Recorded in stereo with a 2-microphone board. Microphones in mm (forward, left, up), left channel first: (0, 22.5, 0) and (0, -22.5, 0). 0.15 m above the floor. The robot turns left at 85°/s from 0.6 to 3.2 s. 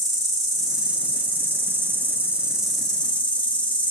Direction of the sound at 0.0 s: 5° left.